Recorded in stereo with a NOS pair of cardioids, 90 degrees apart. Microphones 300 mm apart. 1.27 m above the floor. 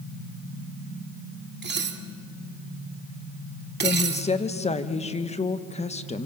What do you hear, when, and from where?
1.6 s dishes clattering: 35° right, 2 m
3.8 s a woman speaking: 20° left, 1.6 m